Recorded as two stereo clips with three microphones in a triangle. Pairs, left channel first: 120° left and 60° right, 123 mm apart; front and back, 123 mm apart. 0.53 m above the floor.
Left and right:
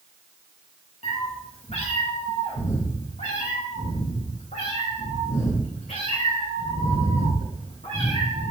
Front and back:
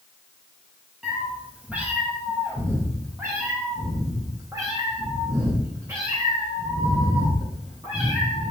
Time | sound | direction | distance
1.0 | a cat meowing | 95° left | 2.5 m